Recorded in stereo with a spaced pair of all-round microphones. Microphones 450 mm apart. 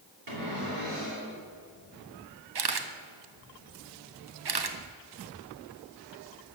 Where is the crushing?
No crushing in this recording.